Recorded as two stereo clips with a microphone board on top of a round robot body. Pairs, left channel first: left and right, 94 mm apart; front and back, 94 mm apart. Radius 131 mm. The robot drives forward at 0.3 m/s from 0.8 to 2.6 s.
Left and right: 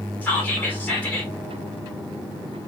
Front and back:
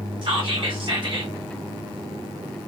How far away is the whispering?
About 1.9 m.